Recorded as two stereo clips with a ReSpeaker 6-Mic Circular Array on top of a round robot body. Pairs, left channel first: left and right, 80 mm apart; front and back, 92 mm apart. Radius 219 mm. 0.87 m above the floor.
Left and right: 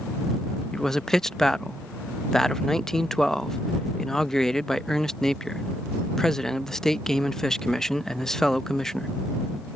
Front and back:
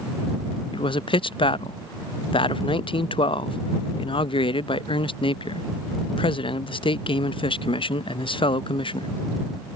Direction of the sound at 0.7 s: 5° left.